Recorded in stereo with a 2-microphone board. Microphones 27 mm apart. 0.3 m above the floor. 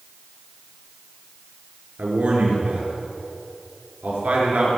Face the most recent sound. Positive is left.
turn(degrees=-75)  # may be behind; listen again after turning